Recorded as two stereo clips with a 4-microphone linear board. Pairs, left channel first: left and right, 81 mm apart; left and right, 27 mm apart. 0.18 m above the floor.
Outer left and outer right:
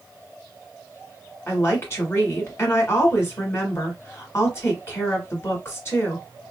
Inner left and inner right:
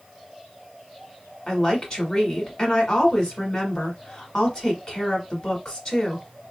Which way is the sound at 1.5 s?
35° left (ahead or behind).